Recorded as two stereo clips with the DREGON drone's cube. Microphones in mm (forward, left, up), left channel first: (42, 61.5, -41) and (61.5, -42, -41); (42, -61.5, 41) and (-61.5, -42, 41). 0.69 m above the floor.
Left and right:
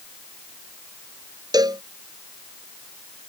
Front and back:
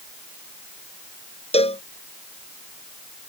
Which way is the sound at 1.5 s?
30° right.